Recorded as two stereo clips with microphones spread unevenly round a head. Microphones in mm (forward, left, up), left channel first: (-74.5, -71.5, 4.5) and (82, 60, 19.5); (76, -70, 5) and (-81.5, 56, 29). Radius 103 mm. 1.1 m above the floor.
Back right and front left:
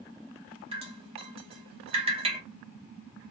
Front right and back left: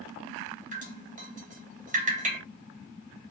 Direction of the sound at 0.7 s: 95° left.